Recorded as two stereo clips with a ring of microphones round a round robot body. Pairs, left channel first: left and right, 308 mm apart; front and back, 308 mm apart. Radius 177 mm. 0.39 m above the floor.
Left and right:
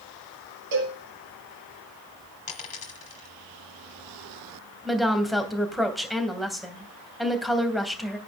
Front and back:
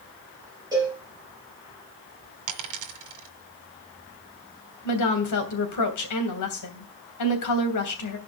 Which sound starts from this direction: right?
A cowbell, at 0.7 s.